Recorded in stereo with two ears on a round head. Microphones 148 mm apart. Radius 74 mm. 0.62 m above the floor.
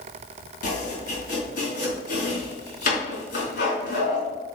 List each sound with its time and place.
0.6 s chopping: 65° left (ahead or behind), 3.5 m